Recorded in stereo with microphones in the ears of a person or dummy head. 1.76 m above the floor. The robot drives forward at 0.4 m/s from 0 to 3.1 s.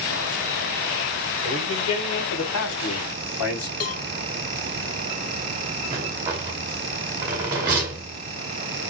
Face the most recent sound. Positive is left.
turn(degrees=-15)  # may be behind; listen again after turning